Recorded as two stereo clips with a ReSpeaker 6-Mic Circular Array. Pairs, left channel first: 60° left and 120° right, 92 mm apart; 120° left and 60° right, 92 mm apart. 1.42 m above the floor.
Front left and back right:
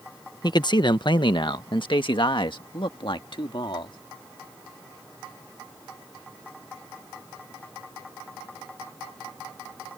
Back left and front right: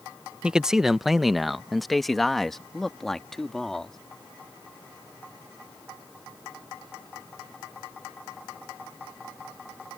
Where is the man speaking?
20° left; by 4.0 s 35° left.